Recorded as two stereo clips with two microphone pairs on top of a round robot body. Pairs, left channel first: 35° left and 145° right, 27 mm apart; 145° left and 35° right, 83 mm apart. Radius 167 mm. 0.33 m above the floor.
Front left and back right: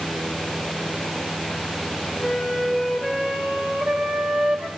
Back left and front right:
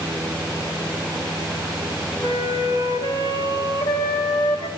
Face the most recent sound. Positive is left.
turn(degrees=160)